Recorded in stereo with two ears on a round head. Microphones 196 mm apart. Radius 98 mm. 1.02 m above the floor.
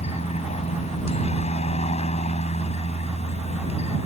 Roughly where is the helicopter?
Left.